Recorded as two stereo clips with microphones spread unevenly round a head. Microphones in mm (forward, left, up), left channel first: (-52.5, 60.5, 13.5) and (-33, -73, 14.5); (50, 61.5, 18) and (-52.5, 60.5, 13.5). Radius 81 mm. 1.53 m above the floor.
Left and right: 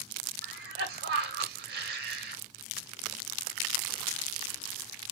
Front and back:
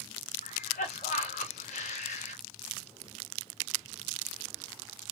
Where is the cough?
50° right, 2 m.